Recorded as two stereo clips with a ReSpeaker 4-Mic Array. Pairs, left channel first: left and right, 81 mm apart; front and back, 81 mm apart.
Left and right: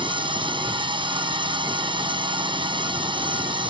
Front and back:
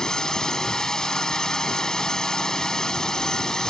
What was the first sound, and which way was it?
A drone, 85° right.